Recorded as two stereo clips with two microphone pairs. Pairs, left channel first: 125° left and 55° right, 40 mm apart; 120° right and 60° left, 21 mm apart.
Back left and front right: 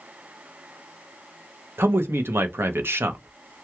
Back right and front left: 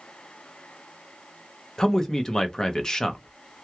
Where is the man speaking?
50° right, 0.8 m.